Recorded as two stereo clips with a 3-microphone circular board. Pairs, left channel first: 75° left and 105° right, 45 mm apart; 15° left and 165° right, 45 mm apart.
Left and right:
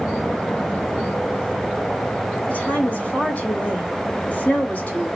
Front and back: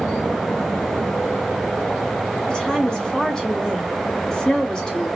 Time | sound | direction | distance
2.5 | a woman speaking | 75° left | 1.1 m